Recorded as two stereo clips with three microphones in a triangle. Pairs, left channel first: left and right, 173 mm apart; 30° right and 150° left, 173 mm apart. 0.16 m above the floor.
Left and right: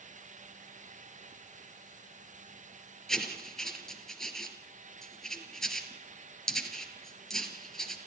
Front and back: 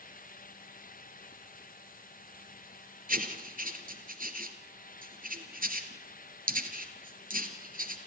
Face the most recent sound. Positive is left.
turn(degrees=175)